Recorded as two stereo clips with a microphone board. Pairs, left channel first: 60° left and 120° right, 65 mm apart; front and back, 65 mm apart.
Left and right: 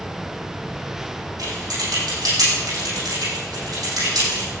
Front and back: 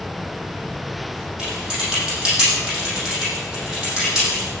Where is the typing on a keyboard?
100° right, 8 m.